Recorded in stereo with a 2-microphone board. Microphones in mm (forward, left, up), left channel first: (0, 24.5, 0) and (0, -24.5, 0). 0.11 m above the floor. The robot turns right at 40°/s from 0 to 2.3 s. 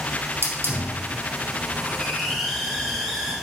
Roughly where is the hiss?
Right.